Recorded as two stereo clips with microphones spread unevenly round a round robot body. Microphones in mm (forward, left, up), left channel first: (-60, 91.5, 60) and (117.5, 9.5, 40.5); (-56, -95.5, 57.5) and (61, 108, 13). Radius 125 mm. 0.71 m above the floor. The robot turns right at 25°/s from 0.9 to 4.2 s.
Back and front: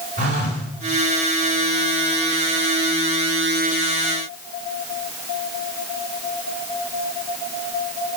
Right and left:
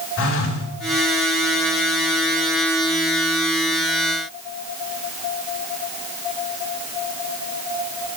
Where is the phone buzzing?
85° right, 3 m.